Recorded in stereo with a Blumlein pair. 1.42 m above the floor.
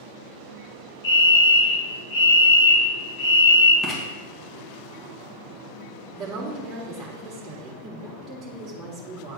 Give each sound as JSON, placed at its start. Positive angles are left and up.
{"t": 1.0, "sound": "a fire alarm", "azimuth_deg": 55, "distance_m": 3.0}
{"t": 3.8, "sound": "writing", "azimuth_deg": 10, "distance_m": 2.0}
{"t": 6.1, "sound": "a woman speaking", "azimuth_deg": -20, "distance_m": 2.0}